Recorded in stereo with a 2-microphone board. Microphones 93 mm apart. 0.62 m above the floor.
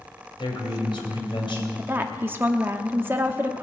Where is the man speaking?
60° left (ahead or behind), 3 m.